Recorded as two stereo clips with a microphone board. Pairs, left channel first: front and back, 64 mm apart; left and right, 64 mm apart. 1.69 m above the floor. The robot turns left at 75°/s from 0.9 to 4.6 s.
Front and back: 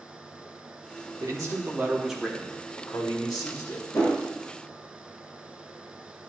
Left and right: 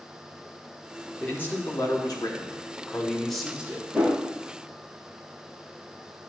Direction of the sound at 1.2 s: 165° left.